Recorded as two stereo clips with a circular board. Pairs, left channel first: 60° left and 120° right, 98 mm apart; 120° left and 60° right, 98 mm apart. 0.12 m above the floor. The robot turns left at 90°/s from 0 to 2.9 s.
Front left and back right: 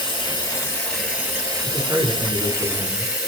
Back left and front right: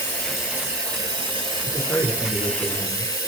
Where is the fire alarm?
No fire alarm in this recording.